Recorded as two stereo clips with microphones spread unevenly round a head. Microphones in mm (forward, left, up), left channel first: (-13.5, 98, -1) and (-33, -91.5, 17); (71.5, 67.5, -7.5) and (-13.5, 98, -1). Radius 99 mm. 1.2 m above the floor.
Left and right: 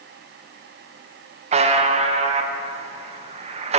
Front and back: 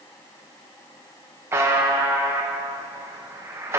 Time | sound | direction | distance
1.5 | a buzzer | 140° right | 0.7 m